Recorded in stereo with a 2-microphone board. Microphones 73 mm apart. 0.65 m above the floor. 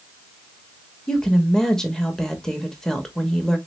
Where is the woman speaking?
5° left (ahead or behind), 0.8 m.